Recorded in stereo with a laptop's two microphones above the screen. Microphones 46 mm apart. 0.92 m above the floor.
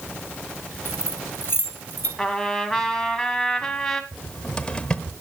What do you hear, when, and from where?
0.8 s keys jangling: 60° left (ahead or behind), 3.5 m; by 2.1 s 45° left (ahead or behind), 3 m
2.2 s a trumpet: 10° left (ahead or behind), 1.7 m
4.1 s a cupboard door: 20° left (ahead or behind), 1.1 m